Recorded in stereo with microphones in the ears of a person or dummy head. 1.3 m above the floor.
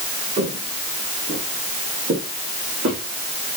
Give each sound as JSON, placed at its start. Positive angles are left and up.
{"t": 0.4, "sound": "footsteps", "side_deg": -35, "distance_m": 3.0}